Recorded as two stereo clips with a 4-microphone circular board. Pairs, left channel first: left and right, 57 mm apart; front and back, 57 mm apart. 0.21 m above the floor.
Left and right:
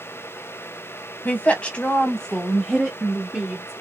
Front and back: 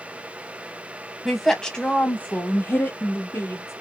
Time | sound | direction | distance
1.2 | a woman speaking | 90° left | 1.1 m